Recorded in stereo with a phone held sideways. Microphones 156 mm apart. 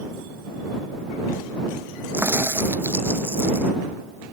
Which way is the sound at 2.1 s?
15° right (ahead or behind).